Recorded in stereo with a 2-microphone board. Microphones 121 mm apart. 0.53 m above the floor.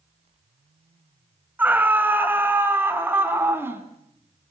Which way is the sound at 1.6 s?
15° right (ahead or behind).